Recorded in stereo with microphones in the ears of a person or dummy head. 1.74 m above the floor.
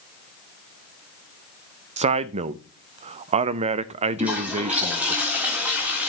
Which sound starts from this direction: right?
A man speaking, at 2.0 s.